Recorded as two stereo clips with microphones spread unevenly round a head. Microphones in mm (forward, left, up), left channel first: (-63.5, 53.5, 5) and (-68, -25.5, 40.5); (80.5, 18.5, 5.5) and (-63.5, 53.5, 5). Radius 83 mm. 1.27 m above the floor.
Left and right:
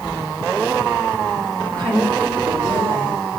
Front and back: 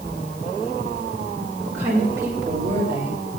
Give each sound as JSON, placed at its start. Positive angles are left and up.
{"t": 1.6, "sound": "a woman speaking", "azimuth_deg": -115, "distance_m": 5.5}